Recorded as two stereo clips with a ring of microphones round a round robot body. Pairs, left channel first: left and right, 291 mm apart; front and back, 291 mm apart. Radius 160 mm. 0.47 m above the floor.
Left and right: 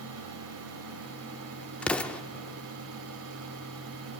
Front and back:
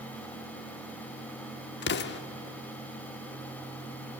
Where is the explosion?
5° left, 0.9 m.